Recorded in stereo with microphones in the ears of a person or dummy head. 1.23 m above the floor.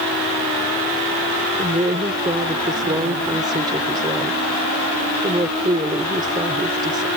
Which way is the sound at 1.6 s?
20° right (ahead or behind).